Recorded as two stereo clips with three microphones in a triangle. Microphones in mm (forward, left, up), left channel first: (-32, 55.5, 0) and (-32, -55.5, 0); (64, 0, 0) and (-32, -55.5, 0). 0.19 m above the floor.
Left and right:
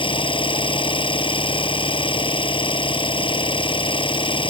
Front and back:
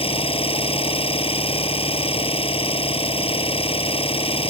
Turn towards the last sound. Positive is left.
turn(degrees=55)